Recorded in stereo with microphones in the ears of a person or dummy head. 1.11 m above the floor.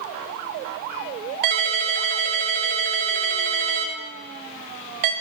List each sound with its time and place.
1.4 s a ringtone: 50° right (ahead or behind), 0.6 m